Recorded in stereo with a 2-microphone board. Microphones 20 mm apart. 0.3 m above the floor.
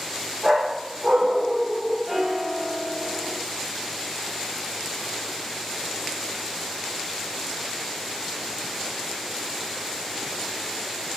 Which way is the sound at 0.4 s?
55° right (ahead or behind).